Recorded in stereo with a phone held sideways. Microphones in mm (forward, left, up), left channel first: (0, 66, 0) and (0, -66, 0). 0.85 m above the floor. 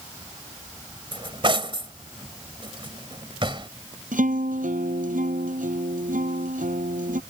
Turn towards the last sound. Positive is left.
turn(degrees=-85)